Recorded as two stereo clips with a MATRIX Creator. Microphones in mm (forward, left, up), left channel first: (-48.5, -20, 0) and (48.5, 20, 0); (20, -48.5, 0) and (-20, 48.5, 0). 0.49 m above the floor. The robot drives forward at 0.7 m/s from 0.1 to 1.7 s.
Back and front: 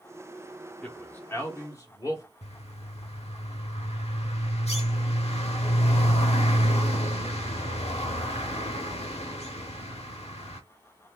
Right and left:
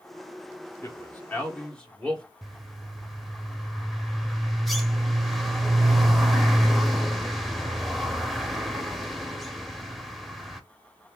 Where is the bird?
155° right, 0.7 m.